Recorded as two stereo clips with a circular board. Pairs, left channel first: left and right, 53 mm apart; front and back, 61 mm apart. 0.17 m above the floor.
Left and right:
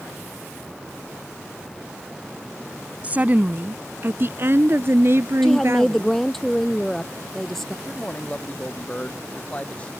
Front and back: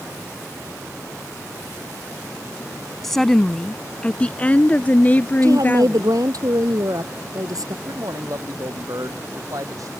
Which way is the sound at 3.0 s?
80° right.